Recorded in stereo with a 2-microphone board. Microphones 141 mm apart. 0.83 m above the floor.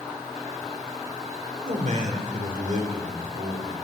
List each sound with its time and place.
1.6 s a man speaking: 60° right (ahead or behind), 2.5 m; by 3.8 s 70° right (ahead or behind), 3.5 m